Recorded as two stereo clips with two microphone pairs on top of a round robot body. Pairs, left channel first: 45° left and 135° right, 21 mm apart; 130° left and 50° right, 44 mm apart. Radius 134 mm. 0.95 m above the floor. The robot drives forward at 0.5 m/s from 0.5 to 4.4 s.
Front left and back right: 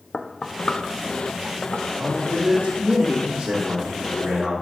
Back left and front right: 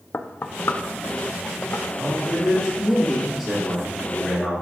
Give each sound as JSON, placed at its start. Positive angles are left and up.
{"t": 0.1, "sound": "knocking", "azimuth_deg": 95, "distance_m": 0.6}
{"t": 2.0, "sound": "a man speaking", "azimuth_deg": -115, "distance_m": 1.6}